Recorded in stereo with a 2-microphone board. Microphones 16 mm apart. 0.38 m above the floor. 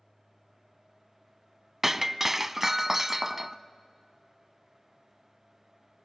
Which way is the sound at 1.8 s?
25° right (ahead or behind).